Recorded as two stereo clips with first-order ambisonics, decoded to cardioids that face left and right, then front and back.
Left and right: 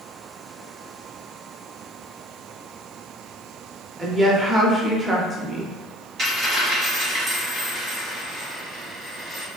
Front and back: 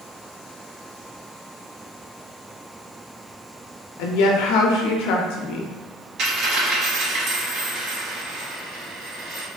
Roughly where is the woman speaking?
Ahead.